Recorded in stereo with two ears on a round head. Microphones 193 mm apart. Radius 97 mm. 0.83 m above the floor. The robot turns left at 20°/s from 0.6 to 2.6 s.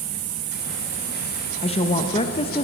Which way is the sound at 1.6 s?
25° left (ahead or behind).